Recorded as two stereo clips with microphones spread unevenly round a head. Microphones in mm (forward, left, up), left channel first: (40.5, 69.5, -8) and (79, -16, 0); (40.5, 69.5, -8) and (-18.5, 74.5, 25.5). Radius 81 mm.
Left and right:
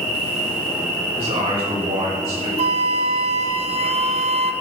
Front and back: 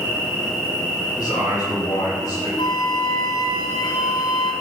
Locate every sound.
0.0 s an insect: 80° right, 4.5 m
1.2 s a man speaking: 55° right, 5 m
2.6 s a flute: 65° right, 0.5 m